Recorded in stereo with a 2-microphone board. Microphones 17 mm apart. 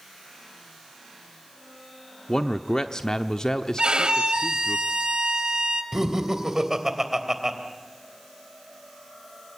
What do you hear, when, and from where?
2.3 s a man speaking: 40° left (ahead or behind), 0.9 m
3.8 s a violin: 65° right (ahead or behind), 1.9 m
5.9 s laughter: 30° right (ahead or behind), 3 m